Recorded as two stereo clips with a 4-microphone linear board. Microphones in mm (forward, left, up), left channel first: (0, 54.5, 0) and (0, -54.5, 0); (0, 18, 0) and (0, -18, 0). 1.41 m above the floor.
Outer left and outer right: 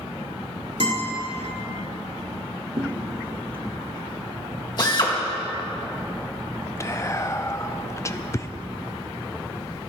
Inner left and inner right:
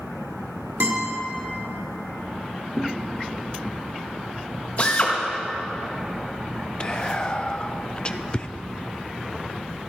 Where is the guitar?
75° right (ahead or behind), 4.5 m.